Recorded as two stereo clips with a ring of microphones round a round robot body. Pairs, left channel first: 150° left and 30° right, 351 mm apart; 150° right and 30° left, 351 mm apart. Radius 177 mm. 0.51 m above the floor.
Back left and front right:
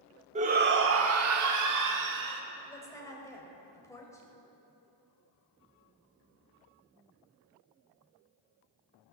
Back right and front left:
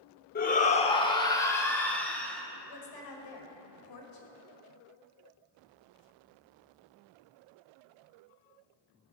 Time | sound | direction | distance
0.3 | a shout | 95° right | 0.9 m
2.7 | a woman speaking | 130° right | 2.5 m